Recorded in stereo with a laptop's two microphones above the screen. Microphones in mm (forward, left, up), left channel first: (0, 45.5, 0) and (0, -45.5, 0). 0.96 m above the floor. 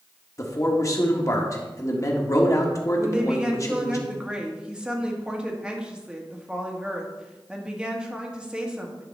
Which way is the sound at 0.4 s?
35° left (ahead or behind).